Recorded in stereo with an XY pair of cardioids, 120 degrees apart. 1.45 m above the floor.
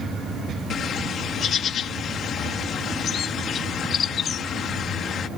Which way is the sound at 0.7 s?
50° left.